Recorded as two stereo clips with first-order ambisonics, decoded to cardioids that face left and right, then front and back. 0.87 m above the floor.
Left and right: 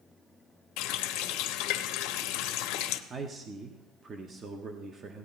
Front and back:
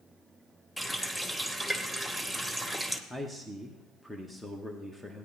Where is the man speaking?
85° right, 0.8 m.